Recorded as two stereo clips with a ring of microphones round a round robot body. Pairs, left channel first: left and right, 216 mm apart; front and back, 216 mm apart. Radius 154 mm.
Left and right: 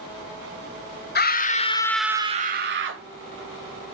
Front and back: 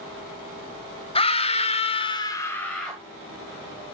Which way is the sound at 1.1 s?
60° left.